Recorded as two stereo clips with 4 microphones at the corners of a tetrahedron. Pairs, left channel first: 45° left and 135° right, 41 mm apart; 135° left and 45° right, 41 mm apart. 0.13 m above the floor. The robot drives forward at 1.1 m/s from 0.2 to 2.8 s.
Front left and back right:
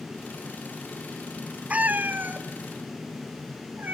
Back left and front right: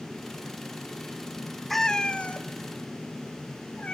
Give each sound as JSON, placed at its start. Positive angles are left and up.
{"t": 1.7, "sound": "a cat meowing", "azimuth_deg": -140, "distance_m": 0.5}